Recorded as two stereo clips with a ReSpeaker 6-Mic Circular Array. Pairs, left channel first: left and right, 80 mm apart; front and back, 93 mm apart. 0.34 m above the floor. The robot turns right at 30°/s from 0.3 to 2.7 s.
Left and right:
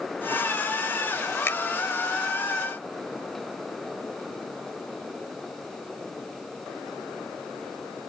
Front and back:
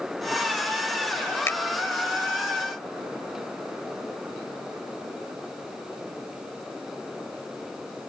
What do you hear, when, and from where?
1.5 s a finger snap: 50° left